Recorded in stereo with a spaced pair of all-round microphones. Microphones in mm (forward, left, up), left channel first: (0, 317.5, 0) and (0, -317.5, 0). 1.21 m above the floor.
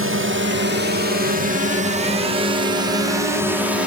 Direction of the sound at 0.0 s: 20° right (ahead or behind).